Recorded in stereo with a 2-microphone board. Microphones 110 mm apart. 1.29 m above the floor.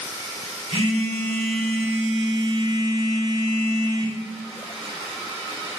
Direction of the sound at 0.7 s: 65° right (ahead or behind).